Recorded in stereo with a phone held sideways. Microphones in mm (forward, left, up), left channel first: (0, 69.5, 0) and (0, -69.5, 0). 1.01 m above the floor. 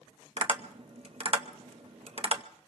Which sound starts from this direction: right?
Tapping, at 0.4 s.